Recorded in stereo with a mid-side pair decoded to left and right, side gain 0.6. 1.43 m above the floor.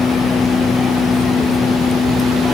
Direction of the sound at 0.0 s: 20° left.